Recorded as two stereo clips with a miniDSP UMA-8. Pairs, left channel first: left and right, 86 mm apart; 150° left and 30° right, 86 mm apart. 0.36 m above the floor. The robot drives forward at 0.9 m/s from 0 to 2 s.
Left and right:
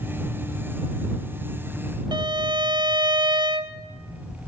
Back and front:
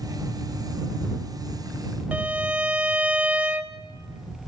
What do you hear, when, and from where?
2.1 s a violin: 100° right, 0.8 m